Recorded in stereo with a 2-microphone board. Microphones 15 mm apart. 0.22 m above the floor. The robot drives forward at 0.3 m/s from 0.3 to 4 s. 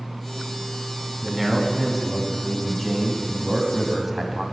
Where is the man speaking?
5° right (ahead or behind), 1.8 m.